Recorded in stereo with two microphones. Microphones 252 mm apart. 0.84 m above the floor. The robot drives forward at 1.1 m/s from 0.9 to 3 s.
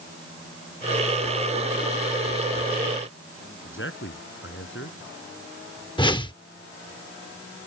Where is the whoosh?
15° left (ahead or behind).